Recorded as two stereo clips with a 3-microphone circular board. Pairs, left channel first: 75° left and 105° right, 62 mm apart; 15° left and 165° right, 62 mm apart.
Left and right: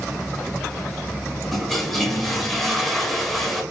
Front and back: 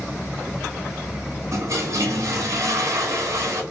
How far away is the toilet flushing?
About 1.0 m.